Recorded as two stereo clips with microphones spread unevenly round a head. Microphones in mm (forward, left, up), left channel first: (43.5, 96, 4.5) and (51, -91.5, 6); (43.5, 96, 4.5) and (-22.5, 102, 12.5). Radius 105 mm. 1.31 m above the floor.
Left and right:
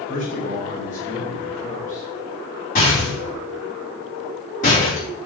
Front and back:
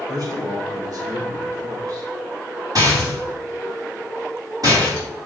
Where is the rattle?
150° left, 4.5 m.